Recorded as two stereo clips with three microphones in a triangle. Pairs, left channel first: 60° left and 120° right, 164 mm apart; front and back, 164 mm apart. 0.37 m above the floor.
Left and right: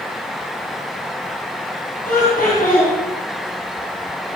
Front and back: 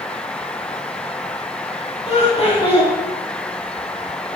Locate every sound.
2.0 s laughter: 45° left, 3.5 m